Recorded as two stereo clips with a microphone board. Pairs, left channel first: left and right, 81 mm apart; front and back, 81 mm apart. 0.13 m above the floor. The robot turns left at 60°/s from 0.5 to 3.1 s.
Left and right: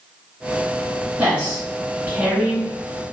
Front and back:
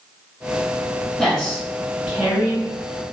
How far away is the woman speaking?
About 1.0 m.